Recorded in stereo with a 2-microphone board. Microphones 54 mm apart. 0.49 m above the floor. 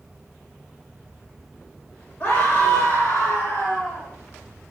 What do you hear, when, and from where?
2.2 s a scream: 50° left (ahead or behind), 2 m; by 4.1 s 70° left (ahead or behind), 3.5 m